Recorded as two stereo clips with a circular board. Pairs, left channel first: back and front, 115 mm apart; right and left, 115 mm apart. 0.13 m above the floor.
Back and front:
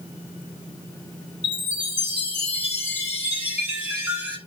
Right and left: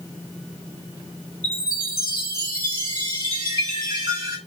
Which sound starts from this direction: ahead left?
A chime, at 1.4 s.